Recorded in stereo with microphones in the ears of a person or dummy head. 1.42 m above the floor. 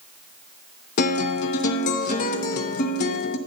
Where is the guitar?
50° left (ahead or behind), 0.8 m.